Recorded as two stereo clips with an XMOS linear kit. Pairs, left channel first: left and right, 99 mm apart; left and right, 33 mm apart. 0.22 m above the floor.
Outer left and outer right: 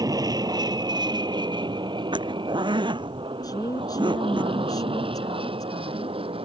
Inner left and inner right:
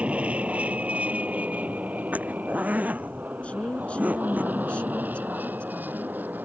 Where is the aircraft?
40° right (ahead or behind); by 6.5 s 65° right (ahead or behind).